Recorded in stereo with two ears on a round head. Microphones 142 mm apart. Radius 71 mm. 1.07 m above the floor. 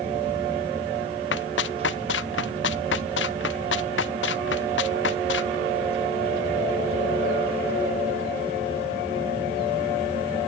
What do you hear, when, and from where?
1.3 s running footsteps: 85° left